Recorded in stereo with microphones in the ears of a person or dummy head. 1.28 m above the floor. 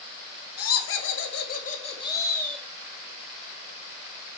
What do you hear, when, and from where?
0.6 s laughter: 70° left (ahead or behind), 1.5 m; by 2.6 s centre (ahead or behind), 1.4 m